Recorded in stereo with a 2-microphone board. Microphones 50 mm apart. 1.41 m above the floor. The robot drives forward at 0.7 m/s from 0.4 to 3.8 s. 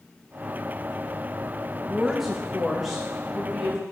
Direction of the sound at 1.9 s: 5° right (ahead or behind).